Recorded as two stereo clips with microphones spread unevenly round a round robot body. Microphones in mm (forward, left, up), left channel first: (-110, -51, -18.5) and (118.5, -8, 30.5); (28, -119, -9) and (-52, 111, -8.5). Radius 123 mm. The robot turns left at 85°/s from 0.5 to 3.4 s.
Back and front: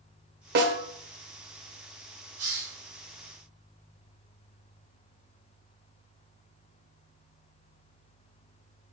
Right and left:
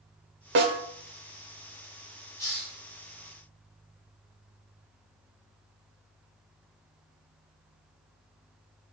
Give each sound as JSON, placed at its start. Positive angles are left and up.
{"t": 0.6, "sound": "a snare drum", "azimuth_deg": 60, "distance_m": 1.0}
{"t": 2.4, "sound": "a hiss", "azimuth_deg": 10, "distance_m": 4.0}